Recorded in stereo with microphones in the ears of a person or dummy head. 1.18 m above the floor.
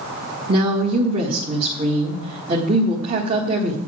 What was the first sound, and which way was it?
A woman speaking, 35° right (ahead or behind).